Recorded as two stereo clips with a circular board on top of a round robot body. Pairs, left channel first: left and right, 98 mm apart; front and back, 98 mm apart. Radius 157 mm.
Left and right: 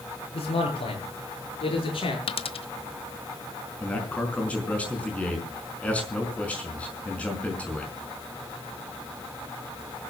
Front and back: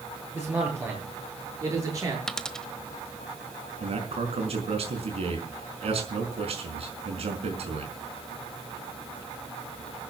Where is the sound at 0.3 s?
110° left, 9 m; by 2.2 s 125° left, 8 m.